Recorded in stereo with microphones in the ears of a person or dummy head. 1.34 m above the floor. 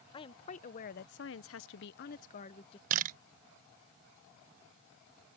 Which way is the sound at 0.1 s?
30° left (ahead or behind).